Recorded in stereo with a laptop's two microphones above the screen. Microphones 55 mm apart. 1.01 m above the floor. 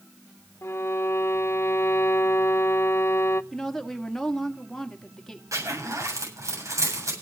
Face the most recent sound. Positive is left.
turn(degrees=-80)